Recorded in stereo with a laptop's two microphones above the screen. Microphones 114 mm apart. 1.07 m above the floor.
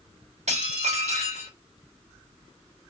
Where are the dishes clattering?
80° right, 1.3 m.